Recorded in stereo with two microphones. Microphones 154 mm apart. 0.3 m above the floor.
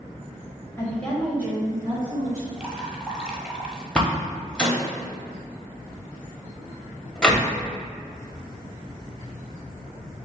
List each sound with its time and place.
0.8 s a woman speaking: 20° left (ahead or behind), 1.6 m; by 2.5 s 50° right (ahead or behind), 2.0 m
2.6 s dripping: 10° right (ahead or behind), 1.1 m
4.0 s a door slam: 5° left (ahead or behind), 1.0 m